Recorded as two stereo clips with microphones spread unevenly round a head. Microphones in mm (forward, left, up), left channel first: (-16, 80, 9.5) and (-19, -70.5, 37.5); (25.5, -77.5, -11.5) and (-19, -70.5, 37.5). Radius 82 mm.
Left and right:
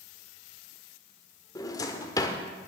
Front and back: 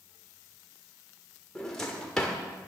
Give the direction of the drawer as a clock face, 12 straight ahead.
7 o'clock.